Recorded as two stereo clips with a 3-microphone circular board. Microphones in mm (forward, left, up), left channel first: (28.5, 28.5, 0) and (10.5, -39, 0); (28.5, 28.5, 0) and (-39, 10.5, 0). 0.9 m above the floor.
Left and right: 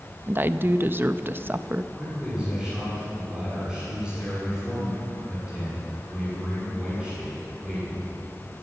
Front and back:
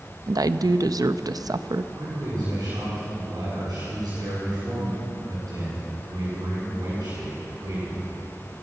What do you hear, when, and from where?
0.3 s a woman speaking: 160° right, 0.5 m
1.9 s a man speaking: 175° left, 7 m